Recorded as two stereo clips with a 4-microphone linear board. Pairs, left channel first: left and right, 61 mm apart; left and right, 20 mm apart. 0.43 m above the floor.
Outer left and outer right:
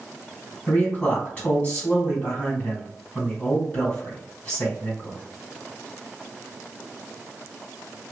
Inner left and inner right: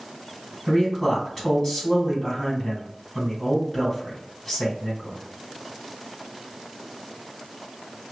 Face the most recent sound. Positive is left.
turn(degrees=25)  # may be behind; listen again after turning